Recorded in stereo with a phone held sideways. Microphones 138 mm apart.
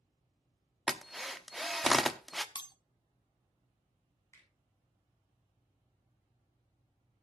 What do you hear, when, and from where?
0.9 s a drill: centre (ahead or behind), 0.7 m
2.5 s breaking glass: 35° left (ahead or behind), 0.8 m
4.3 s a finger snap: 20° left (ahead or behind), 7 m